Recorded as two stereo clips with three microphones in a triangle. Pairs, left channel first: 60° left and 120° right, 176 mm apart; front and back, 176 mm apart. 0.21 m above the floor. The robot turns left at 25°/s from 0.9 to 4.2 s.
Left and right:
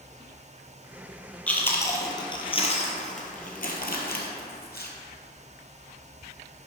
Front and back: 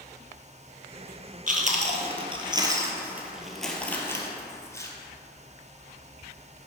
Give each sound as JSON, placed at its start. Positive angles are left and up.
{"t": 1.5, "sound": "chewing", "azimuth_deg": 140, "distance_m": 1.2}